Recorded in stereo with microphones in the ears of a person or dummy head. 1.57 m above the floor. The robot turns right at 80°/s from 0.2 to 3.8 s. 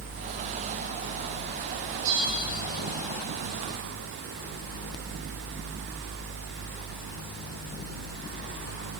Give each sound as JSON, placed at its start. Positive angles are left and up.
{"t": 2.0, "sound": "a bell", "azimuth_deg": -45, "distance_m": 2.5}